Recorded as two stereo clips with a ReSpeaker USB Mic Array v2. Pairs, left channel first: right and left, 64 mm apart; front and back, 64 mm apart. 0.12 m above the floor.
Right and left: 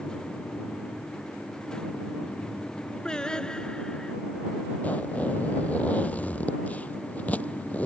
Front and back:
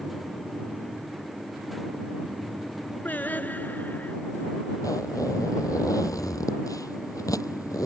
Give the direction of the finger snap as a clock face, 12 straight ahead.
No finger snap in this recording.